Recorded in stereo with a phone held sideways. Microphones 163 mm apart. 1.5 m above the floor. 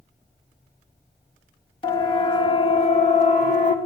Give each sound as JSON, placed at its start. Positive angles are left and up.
{"t": 1.8, "sound": "a siren", "side_deg": 30, "distance_m": 3.0}